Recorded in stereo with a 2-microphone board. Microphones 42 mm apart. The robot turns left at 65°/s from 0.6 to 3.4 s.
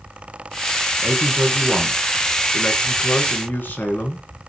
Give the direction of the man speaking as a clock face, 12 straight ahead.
4 o'clock.